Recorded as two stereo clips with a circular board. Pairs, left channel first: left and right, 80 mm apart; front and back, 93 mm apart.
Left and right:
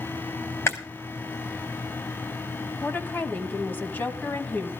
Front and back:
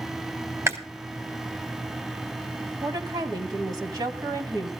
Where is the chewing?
130° left, 1.6 m.